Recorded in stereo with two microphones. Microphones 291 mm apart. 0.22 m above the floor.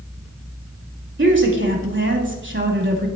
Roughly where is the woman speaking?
Right.